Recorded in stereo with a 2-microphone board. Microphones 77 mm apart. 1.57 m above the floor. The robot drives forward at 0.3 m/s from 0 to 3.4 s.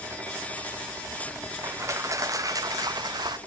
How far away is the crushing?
About 0.9 m.